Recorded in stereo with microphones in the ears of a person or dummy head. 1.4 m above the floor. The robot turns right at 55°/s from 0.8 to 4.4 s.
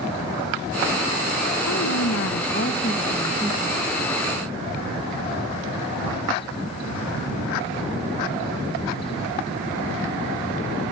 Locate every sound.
1.7 s a woman speaking: 90° left, 1.8 m; by 3.8 s 155° right, 1.8 m